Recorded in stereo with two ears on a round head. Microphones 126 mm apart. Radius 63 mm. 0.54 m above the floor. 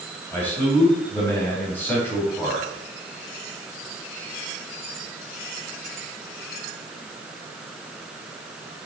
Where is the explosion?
No explosion in this recording.